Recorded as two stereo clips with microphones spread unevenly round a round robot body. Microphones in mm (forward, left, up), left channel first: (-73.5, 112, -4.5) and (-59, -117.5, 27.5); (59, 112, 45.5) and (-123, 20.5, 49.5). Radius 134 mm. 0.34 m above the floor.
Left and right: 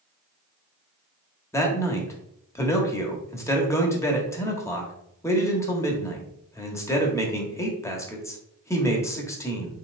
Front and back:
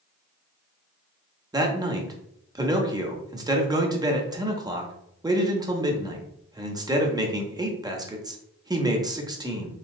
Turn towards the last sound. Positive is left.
turn(degrees=150)